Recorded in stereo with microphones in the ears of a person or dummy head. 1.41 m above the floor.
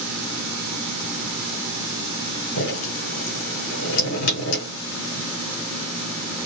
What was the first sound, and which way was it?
Dripping, 75° left (ahead or behind).